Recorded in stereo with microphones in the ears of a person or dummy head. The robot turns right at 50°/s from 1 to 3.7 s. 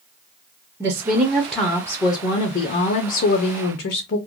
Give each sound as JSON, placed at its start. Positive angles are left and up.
{"t": 0.8, "sound": "a woman speaking", "azimuth_deg": -30, "distance_m": 0.5}